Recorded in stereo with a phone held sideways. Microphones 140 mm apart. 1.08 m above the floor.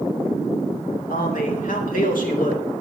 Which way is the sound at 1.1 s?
75° left (ahead or behind).